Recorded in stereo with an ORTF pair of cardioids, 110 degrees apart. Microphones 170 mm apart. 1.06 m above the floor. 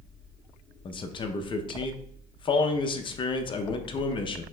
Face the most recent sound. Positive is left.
turn(degrees=35)